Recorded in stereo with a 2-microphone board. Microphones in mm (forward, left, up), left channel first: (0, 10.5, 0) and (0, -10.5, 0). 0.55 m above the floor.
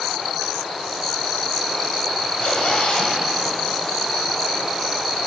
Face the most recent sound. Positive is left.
turn(degrees=70)  # may be behind; listen again after turning